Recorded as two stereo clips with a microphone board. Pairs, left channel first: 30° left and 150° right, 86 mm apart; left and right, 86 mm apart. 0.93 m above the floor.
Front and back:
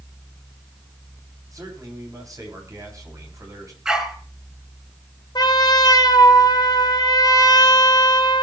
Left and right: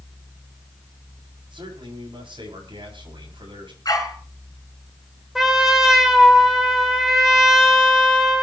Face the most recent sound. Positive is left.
turn(degrees=-5)